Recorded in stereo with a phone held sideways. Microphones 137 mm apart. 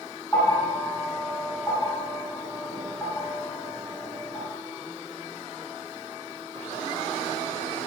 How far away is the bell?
About 1.6 m.